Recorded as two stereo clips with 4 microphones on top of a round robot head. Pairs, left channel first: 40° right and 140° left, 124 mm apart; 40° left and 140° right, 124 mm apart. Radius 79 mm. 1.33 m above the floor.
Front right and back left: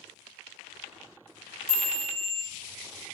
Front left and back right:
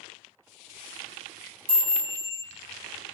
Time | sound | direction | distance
1.7 | a chime | 140° right | 0.7 m